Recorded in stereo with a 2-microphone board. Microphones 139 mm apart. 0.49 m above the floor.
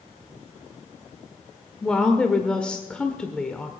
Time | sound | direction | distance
1.8 | a woman speaking | 5° left (ahead or behind) | 1.2 m